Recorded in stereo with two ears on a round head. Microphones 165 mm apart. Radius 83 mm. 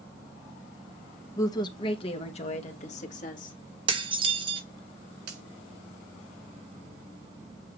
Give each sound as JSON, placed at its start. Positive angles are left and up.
{"t": 1.4, "sound": "a woman speaking", "side_deg": 15, "distance_m": 0.9}
{"t": 3.9, "sound": "dishes clattering", "side_deg": -25, "distance_m": 1.3}
{"t": 5.3, "sound": "a finger snap", "side_deg": -60, "distance_m": 4.0}